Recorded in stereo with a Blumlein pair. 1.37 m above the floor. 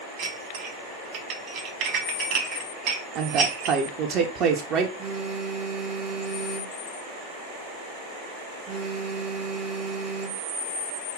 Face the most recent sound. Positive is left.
turn(degrees=-25)